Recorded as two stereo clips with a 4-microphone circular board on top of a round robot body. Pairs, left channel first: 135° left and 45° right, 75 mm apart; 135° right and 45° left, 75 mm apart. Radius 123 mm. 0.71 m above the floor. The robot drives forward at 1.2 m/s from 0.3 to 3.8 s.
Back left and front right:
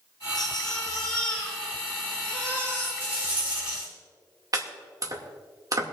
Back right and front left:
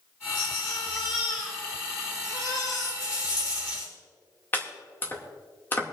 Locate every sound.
0.3 s a baby crying: 140° right, 3 m; by 2.9 s 160° right, 5.5 m
3.0 s a rattle: 115° right, 6.5 m; by 3.9 s 120° right, 7 m
4.5 s chopping: 75° right, 2.5 m